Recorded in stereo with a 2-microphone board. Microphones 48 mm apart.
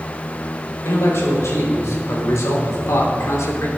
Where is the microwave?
No microwave in this recording.